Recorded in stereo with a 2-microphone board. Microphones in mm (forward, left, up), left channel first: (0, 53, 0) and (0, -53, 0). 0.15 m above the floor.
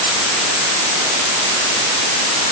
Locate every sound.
Only background noise.